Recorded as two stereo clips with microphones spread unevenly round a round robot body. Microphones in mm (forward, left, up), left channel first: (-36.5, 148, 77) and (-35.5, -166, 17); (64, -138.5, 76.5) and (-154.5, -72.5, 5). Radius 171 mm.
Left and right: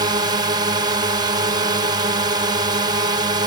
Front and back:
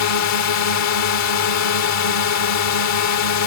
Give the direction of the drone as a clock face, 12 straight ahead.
1 o'clock.